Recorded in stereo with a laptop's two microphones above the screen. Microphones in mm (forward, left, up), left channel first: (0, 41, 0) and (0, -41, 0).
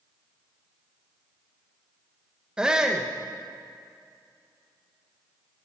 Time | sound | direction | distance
2.6 | a shout | 10° right (ahead or behind) | 1.0 m